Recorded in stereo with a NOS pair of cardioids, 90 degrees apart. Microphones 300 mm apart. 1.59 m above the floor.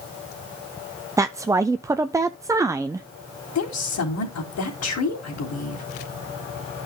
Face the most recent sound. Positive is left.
turn(degrees=55)